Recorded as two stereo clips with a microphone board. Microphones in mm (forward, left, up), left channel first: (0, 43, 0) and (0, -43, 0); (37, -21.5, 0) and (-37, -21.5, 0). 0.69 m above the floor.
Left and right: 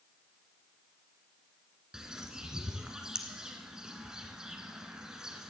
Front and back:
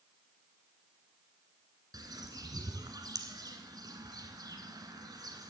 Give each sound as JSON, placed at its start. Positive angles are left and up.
{"t": 1.9, "sound": "a bird", "azimuth_deg": -170, "distance_m": 1.3}